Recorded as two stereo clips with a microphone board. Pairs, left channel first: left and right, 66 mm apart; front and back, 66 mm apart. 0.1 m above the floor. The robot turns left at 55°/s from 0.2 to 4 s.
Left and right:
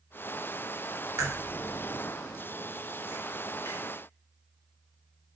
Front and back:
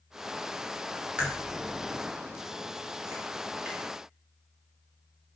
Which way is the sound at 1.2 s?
110° right.